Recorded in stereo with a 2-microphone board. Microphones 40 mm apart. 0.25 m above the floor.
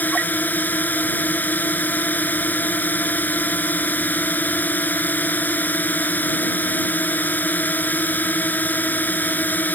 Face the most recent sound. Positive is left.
turn(degrees=45)  # may be behind; listen again after turning